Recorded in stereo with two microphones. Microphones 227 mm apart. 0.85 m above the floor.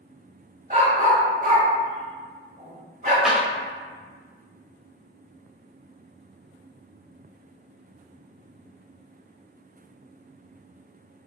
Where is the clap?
Centre (ahead or behind), 1.0 m.